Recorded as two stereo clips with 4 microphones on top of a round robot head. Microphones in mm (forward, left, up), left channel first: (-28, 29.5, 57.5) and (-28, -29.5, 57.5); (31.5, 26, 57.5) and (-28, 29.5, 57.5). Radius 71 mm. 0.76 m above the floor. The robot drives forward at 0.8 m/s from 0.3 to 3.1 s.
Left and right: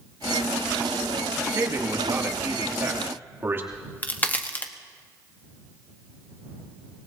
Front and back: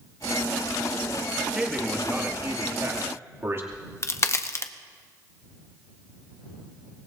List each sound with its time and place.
1.6 s a man speaking: 105° right, 1.8 m; by 3.6 s 140° right, 2.5 m
3.7 s a crack: 30° left, 1.1 m